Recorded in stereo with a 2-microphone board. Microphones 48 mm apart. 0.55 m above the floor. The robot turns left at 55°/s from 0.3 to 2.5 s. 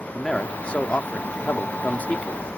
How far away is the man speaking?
About 0.7 m.